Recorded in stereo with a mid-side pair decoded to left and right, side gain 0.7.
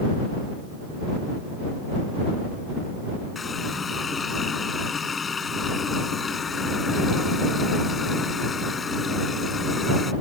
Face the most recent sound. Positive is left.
turn(degrees=25)